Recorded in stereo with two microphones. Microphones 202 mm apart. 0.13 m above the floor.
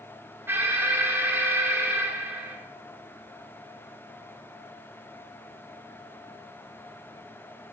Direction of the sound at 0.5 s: 10° right (ahead or behind).